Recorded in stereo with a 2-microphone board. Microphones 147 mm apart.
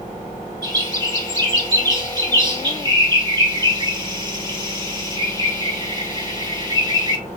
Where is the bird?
30° right (ahead or behind), 1.5 m.